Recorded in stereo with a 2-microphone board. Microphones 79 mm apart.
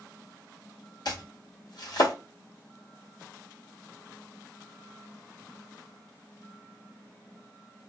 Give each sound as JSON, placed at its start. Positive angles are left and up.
{"t": 1.1, "sound": "chopping", "side_deg": 60, "distance_m": 1.3}